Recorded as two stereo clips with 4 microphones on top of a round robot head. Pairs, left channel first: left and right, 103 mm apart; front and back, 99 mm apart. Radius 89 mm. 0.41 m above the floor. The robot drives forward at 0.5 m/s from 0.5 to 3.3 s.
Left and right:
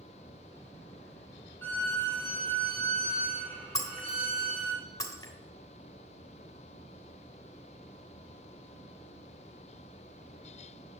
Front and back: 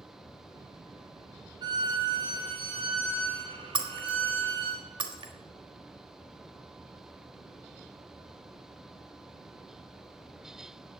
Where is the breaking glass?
150° left, 1.4 m.